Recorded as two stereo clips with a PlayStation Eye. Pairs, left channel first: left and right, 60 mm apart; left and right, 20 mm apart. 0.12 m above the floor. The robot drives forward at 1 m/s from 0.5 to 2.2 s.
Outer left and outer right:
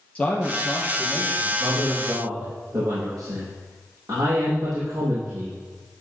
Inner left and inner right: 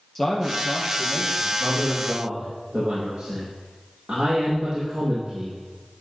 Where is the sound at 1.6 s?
75° right (ahead or behind), 5.5 m.